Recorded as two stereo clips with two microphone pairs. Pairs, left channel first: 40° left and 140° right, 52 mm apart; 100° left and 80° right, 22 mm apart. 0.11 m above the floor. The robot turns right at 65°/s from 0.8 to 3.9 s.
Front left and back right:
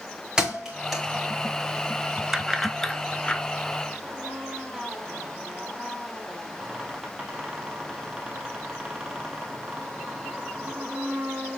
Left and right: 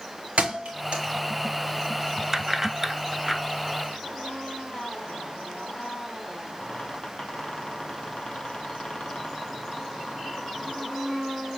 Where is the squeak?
140° left, 2 m.